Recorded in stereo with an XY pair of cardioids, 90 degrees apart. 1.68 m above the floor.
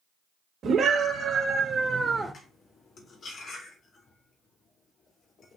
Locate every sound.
0.6 s a scream: 65° right, 3 m; by 2.3 s 5° left, 1.0 m
2.3 s cutlery clinking: 65° left, 2.5 m